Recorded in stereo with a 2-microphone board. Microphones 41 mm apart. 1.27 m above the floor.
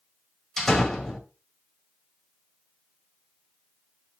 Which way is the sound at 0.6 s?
5° left (ahead or behind).